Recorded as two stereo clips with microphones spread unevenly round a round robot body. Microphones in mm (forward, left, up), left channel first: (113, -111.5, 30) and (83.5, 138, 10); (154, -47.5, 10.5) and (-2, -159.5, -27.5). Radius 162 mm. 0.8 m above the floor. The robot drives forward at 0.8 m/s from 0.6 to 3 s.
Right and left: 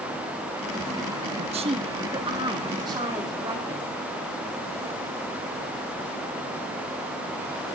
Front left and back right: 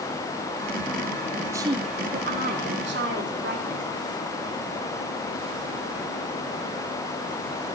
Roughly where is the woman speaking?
Behind left.